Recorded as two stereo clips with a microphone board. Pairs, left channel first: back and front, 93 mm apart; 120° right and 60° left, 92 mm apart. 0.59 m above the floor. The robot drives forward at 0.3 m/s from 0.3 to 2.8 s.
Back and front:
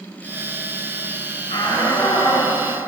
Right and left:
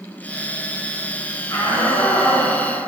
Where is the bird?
No bird in this recording.